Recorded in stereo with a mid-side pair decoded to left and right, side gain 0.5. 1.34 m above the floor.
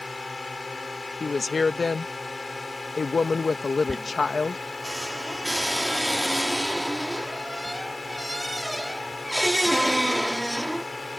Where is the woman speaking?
30° left.